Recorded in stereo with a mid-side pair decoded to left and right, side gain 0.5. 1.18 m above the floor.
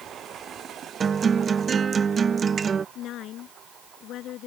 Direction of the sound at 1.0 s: 35° right.